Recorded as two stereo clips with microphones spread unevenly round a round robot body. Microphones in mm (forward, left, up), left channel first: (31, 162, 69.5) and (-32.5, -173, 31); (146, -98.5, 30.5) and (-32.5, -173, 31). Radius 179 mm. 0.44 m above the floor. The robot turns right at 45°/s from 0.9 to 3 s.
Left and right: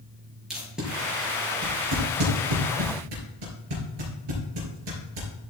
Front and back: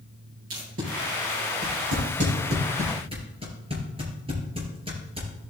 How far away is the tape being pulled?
About 4.5 m.